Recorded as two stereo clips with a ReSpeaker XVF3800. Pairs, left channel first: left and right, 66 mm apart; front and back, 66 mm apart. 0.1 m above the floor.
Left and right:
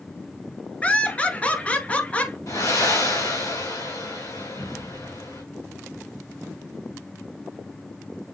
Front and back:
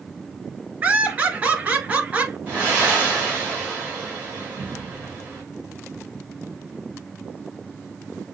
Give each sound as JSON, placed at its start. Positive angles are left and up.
{"t": 0.8, "sound": "laughter", "azimuth_deg": 140, "distance_m": 1.4}
{"t": 2.5, "sound": "breathing", "azimuth_deg": 115, "distance_m": 3.0}